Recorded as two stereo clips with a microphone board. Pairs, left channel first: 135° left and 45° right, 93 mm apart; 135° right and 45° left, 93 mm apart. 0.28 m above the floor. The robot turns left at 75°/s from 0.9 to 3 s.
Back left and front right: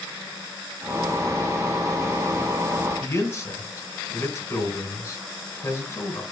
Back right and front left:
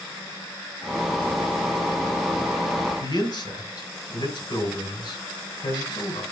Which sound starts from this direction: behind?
A man speaking, at 3.0 s.